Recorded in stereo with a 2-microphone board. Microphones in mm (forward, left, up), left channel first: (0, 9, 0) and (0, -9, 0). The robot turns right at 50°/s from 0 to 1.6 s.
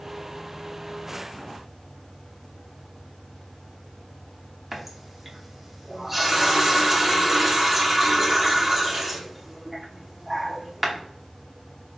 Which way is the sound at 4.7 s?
15° right (ahead or behind).